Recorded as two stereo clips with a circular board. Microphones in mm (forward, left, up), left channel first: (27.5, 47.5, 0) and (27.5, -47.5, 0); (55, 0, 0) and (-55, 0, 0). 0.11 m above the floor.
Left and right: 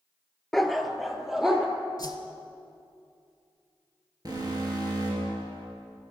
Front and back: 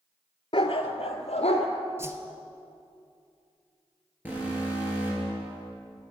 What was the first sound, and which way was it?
A dog barking, straight ahead.